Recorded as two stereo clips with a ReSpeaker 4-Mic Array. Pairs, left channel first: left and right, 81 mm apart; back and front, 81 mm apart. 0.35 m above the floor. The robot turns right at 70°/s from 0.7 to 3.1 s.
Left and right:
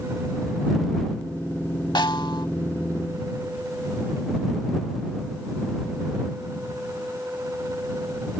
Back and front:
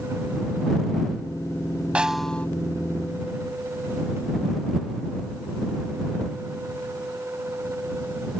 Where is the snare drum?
75° left; by 2.5 s 110° left.